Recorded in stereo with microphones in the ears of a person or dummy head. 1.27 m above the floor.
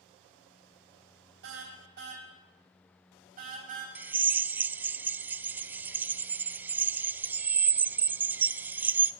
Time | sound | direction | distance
1.4 | a car horn | 65° right (ahead or behind) | 4 m
4.0 | a drill | 10° right (ahead or behind) | 0.6 m